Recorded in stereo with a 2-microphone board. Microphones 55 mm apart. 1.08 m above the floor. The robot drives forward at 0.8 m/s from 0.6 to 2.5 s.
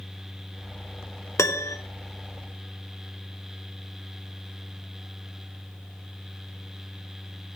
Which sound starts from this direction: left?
A piano, at 1.4 s.